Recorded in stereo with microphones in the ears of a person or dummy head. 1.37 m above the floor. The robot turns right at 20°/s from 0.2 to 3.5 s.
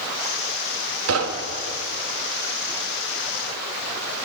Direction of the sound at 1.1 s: 85° right.